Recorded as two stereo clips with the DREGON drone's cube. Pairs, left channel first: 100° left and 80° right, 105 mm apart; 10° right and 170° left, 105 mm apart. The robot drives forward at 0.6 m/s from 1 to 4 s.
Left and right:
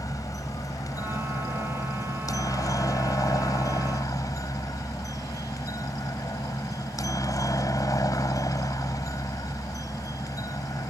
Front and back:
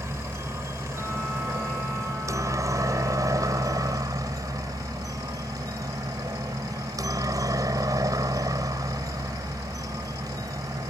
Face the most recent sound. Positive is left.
turn(degrees=135)